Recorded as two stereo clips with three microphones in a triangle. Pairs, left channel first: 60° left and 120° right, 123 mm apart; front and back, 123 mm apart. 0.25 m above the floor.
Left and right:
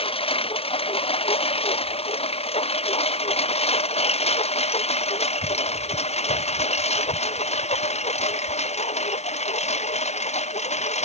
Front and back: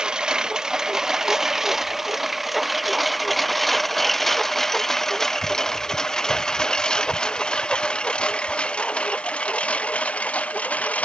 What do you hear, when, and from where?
0.0 s a lawn mower: 95° left; by 11.1 s 80° left